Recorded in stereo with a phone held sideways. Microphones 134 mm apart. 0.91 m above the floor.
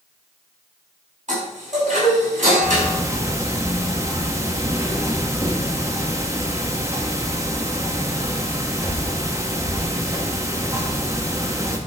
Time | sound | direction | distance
1.3 | a chime | 65° right (ahead or behind) | 5.5 m
2.6 | ticking | 20° right (ahead or behind) | 1.2 m